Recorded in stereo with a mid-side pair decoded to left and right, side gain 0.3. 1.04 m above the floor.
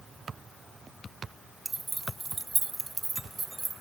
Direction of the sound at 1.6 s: 30° right.